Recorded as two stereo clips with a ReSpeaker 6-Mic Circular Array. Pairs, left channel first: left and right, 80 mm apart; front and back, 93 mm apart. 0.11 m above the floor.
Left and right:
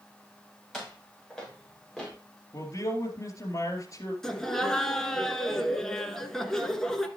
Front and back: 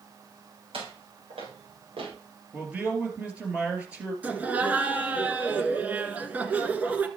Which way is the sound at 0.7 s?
Straight behind.